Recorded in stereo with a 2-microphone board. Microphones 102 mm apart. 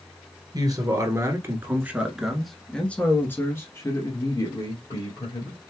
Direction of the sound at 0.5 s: 40° right (ahead or behind).